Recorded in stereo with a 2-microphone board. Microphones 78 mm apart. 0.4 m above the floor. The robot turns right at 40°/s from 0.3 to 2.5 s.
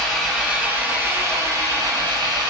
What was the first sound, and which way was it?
An engine running, 175° right.